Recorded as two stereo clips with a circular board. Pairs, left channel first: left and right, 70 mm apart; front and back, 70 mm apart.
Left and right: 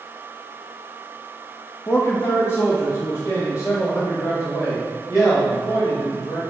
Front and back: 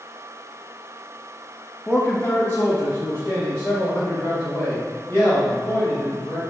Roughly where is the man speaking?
Ahead left.